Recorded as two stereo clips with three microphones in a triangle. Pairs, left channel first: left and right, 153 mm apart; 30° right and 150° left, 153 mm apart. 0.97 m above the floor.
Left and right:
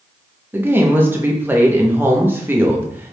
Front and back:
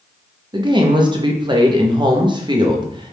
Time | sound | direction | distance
0.5 | a woman speaking | 160° right | 0.7 m